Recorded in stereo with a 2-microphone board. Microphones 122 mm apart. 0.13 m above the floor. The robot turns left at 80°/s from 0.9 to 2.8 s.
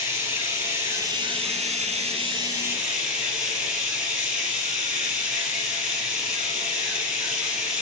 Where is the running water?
25° right, 2.5 m; by 7.8 s 175° right, 2.5 m.